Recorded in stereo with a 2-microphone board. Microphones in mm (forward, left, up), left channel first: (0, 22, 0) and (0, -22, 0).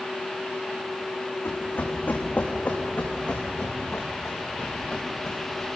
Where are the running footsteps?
50° left (ahead or behind), 4.5 m; by 5.7 s 10° left (ahead or behind), 7 m.